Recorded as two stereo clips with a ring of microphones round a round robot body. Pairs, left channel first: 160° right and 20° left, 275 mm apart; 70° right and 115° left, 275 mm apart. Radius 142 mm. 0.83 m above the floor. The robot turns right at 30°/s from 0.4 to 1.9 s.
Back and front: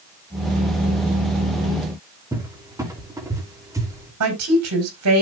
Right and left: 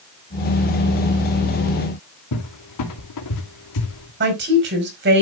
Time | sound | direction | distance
2.3 | a cupboard door | 55° right | 2.5 m
4.2 | a woman speaking | 60° left | 4.5 m